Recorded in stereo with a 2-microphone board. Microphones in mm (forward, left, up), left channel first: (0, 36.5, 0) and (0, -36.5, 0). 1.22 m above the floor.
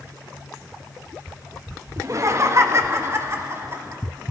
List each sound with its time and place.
2.0 s laughter: 45° right (ahead or behind), 1.1 m; by 4.0 s 35° right (ahead or behind), 2 m